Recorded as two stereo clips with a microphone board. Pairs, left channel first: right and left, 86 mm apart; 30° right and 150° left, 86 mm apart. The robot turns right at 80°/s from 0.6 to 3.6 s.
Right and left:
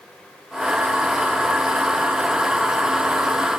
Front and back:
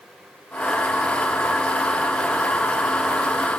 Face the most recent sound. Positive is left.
No sound to turn to.